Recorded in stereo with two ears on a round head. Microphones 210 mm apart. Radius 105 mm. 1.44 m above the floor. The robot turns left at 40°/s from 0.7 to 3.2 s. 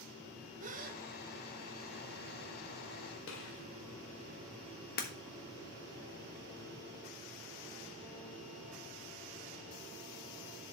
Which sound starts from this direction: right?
A gasp, at 0.6 s.